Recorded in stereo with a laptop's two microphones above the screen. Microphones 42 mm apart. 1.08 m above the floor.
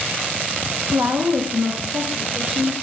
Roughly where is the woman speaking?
Right.